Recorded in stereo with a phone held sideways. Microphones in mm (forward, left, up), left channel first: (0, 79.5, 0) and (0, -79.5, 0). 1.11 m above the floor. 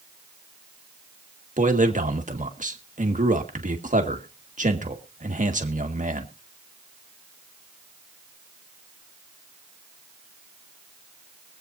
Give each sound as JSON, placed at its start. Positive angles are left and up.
{"t": 1.6, "sound": "a man speaking", "side_deg": -55, "distance_m": 1.7}